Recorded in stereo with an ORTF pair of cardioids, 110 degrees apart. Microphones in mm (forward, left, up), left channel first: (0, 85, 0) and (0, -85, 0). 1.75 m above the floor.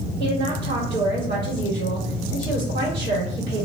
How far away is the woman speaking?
About 1.4 m.